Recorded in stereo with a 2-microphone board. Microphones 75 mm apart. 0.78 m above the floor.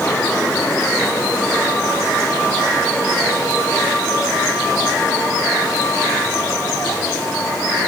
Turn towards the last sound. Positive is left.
No sound to turn to.